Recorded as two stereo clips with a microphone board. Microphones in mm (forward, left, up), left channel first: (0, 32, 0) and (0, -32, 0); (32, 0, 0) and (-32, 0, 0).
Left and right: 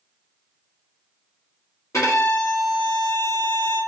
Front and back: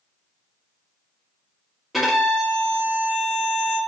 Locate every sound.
1.9 s a violin: 90° left, 1.2 m